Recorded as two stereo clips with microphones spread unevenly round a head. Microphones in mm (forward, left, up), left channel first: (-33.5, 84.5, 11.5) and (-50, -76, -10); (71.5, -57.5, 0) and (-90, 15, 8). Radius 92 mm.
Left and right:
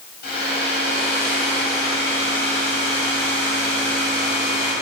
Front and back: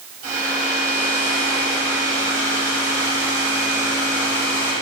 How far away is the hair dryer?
About 3 m.